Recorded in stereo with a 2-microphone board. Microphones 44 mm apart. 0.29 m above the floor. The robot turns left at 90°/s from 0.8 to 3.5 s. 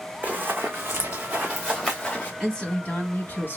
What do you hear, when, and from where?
0.2 s running footsteps: 35° right (ahead or behind), 0.8 m; by 2.3 s 40° left (ahead or behind), 2.5 m
2.4 s a woman speaking: 170° left, 1.7 m; by 3.6 s 70° left, 1.7 m